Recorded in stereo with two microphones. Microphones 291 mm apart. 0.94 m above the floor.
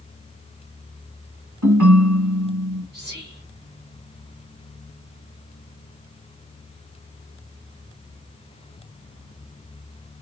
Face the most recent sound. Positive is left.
turn(degrees=-35)  # may be behind; listen again after turning